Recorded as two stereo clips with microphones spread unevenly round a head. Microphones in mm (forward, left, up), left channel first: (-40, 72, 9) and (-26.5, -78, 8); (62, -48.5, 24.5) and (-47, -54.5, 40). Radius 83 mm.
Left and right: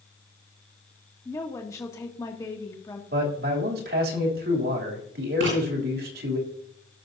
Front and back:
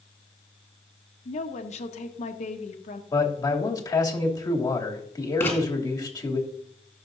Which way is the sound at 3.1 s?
55° right.